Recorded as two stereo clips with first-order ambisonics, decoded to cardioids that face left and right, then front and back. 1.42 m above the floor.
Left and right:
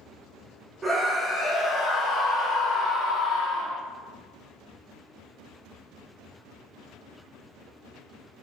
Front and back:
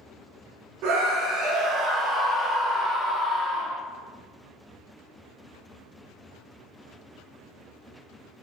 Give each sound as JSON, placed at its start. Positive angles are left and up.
{"t": 0.8, "sound": "a scream", "azimuth_deg": -170, "distance_m": 0.8}